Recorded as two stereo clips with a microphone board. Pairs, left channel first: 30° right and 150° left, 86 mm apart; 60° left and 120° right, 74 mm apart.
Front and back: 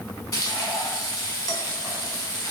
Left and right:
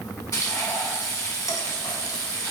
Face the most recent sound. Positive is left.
turn(degrees=25)